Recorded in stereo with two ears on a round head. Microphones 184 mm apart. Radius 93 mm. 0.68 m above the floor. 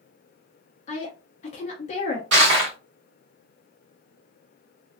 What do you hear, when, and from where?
0.9 s a woman speaking: 35° left (ahead or behind), 0.7 m
2.3 s crushing: 60° right (ahead or behind), 1.4 m